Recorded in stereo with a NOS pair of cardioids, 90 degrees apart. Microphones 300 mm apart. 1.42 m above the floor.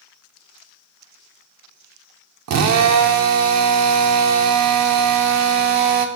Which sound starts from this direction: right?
A drill, at 2.5 s.